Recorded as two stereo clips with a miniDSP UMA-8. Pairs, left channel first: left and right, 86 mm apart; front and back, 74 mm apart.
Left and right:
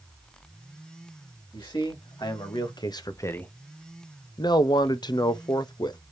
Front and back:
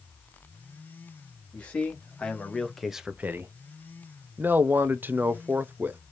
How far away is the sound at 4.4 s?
About 0.6 m.